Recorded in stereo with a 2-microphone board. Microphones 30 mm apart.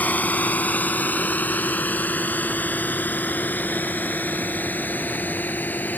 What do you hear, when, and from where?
0.0 s a drone: 65° left (ahead or behind); by 6.0 s 85° left